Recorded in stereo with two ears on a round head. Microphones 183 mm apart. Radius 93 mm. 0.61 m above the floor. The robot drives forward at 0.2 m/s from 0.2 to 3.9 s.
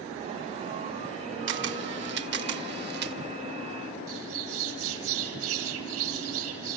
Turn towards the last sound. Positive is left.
turn(degrees=-80)